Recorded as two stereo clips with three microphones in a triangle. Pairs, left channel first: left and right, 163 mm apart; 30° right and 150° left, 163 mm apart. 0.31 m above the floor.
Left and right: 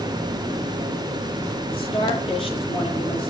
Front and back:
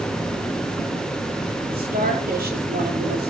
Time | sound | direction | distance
1.7 | a woman speaking | 145° left | 6 m